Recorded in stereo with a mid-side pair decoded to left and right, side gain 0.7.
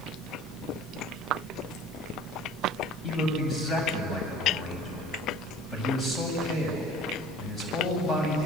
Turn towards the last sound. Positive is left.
turn(degrees=25)